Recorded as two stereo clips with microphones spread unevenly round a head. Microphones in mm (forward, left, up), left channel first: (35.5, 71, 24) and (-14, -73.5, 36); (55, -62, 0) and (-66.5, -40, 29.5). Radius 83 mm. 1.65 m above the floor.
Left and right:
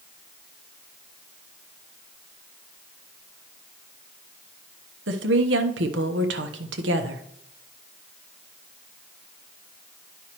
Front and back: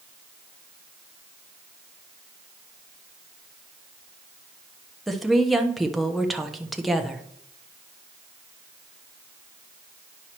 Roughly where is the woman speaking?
Right.